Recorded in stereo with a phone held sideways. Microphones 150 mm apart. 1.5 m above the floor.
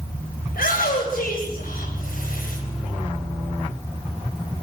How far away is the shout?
About 9.5 m.